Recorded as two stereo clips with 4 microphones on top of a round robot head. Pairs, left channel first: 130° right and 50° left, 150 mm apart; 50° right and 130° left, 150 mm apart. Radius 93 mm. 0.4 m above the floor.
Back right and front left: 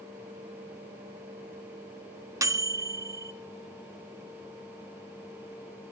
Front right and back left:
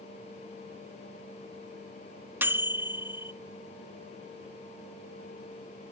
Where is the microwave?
75° left, 0.6 m.